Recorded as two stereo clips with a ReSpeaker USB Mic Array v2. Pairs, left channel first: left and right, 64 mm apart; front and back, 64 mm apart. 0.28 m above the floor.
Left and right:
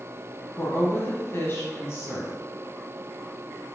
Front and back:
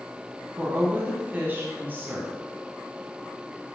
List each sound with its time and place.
0.6 s a woman speaking: 125° left, 1.9 m